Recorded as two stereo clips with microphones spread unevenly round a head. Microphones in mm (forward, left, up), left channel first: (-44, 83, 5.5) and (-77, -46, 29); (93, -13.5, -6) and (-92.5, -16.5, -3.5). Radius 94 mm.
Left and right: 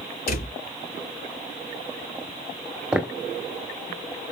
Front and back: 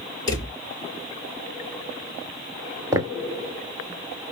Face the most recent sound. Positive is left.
turn(degrees=-140)